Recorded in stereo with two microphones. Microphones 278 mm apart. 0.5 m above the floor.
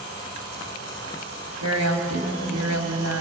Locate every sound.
1.6 s a woman speaking: 70° right (ahead or behind), 3 m